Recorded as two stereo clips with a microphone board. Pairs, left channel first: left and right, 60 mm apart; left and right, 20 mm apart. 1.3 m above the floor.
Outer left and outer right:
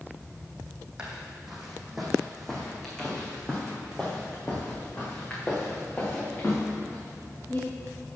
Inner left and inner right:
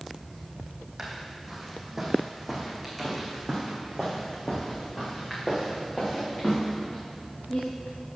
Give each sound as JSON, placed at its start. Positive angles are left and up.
{"t": 1.0, "sound": "footsteps", "side_deg": -15, "distance_m": 2.5}